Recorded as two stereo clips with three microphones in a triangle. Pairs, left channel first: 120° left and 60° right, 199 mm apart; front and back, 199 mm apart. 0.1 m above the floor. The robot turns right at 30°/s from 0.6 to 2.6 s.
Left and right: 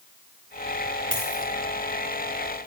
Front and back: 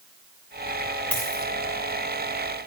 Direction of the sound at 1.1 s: 85° right.